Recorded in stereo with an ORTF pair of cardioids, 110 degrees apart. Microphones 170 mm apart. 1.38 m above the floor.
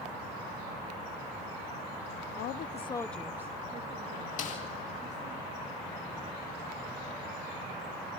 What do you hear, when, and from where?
2.4 s a woman speaking: 70° left, 0.6 m; by 5.4 s 45° right, 2.0 m
4.4 s a snare drum: 45° left, 2 m